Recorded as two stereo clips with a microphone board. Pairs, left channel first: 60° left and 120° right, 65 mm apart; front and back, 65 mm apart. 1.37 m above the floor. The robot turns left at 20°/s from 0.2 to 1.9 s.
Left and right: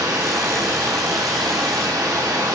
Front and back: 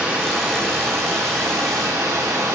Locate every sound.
0.0 s running water: 105° right, 1.1 m; by 2.6 s 140° right, 1.1 m